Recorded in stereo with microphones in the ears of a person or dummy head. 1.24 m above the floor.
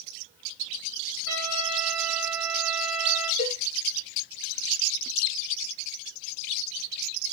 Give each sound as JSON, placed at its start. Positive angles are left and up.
{"t": 1.3, "sound": "a trumpet", "side_deg": -70, "distance_m": 3.0}
{"t": 3.4, "sound": "a cowbell", "side_deg": 40, "distance_m": 1.1}